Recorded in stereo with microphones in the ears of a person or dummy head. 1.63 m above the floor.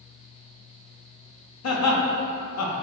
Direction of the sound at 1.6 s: 85° left.